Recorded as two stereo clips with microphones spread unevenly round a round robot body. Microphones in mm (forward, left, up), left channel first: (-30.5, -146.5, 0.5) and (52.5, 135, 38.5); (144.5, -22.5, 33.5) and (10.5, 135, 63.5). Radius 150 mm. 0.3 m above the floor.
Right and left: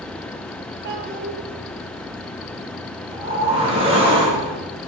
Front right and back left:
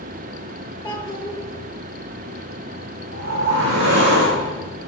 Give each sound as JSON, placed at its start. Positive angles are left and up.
{"t": 0.8, "sound": "a child speaking", "azimuth_deg": 30, "distance_m": 5.5}
{"t": 3.1, "sound": "a whoosh", "azimuth_deg": 145, "distance_m": 7.5}